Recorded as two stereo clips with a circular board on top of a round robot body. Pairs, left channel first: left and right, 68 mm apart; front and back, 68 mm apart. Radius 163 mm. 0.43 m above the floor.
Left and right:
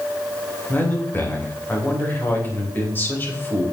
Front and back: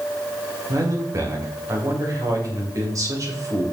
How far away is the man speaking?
About 3 m.